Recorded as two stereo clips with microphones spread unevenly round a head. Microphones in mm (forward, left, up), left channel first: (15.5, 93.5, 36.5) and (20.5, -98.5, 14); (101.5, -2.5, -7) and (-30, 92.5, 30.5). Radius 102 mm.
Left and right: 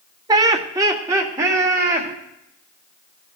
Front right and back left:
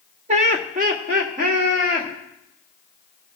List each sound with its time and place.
0.3 s laughter: 155° right, 0.6 m; by 2.1 s 165° right, 2.5 m